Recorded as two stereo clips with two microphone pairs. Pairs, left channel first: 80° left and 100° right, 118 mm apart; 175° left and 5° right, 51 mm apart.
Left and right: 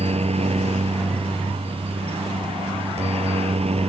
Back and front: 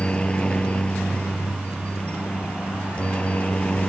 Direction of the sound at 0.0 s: 120° right.